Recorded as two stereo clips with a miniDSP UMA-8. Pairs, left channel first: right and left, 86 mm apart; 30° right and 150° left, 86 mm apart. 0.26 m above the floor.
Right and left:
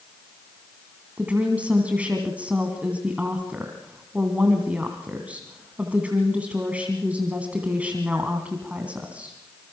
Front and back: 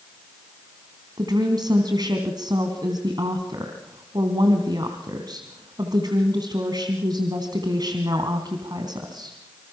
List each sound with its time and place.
1.2 s a woman speaking: 160° left, 2.5 m